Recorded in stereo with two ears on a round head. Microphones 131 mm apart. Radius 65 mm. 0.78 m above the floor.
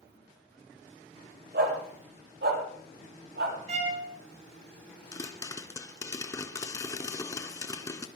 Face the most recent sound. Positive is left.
turn(degrees=25)  # may be behind; listen again after turning